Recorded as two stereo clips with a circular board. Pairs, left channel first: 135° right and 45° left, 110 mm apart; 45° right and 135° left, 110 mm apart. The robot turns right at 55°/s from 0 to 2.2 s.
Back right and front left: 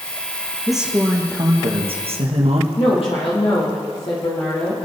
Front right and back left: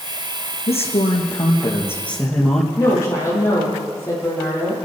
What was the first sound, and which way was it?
A man speaking, 45° right.